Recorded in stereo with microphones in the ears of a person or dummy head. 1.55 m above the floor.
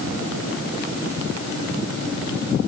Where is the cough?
No cough in this recording.